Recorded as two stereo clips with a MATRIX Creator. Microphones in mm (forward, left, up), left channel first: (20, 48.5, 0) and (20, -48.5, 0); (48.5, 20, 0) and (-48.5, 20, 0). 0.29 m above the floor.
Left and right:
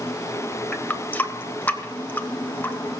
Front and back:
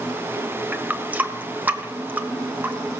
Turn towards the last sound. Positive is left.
turn(degrees=135)